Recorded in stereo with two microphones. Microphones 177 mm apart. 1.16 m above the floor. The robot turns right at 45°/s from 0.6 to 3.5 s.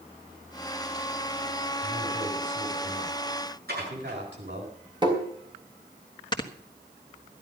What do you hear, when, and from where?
1.8 s a man speaking: 165° right, 7.5 m; by 4.7 s 90° right, 7.5 m
3.7 s dishes clattering: 60° right (ahead or behind), 9.5 m
5.0 s tapping: 25° right (ahead or behind), 3.5 m
6.3 s snoring: 25° left (ahead or behind), 1.5 m